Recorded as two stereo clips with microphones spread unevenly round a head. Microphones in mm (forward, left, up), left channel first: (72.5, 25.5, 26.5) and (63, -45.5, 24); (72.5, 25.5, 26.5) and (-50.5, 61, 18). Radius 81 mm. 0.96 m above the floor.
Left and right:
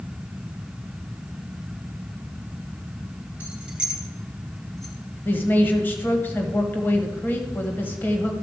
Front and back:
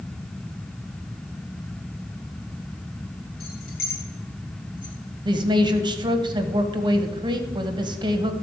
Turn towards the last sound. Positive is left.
turn(degrees=140)